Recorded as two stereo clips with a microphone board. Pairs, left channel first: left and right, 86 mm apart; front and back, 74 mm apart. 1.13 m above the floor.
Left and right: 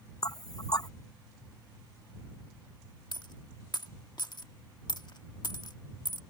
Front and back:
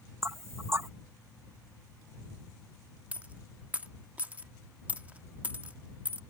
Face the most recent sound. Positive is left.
turn(degrees=115)